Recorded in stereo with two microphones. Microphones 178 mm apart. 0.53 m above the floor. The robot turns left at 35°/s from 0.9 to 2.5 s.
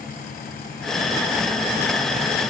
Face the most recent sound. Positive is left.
No sound to turn to.